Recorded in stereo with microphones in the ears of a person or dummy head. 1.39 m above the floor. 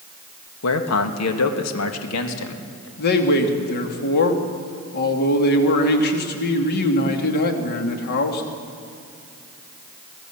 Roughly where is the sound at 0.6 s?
Left.